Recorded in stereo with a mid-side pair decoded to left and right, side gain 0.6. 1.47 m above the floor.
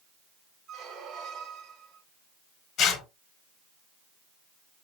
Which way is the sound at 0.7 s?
65° right.